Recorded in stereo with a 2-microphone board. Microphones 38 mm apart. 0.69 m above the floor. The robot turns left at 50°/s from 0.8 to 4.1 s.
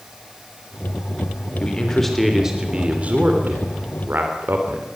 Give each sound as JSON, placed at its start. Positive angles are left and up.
{"t": 1.6, "sound": "a man speaking", "azimuth_deg": 30, "distance_m": 2.5}